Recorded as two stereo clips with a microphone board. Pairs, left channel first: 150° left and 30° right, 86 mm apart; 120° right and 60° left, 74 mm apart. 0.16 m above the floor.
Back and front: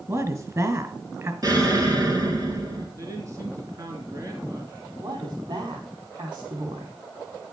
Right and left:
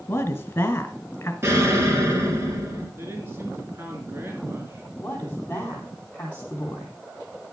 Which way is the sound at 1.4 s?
10° left.